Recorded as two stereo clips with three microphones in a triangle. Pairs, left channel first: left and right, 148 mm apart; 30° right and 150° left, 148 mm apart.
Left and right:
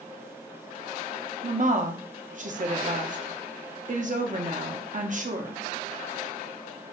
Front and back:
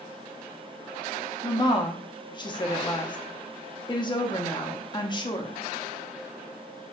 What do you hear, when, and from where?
1.4 s a woman speaking: 85° right, 0.7 m